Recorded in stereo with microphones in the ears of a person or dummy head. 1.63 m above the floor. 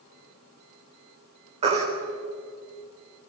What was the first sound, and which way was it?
A baby crying, 35° right (ahead or behind).